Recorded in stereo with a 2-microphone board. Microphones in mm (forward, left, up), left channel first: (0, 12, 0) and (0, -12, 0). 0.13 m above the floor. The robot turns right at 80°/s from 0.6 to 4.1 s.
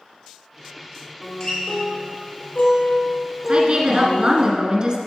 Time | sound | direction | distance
1.2 | a guitar | straight ahead | 3 m
3.5 | a woman speaking | 115° right | 1.3 m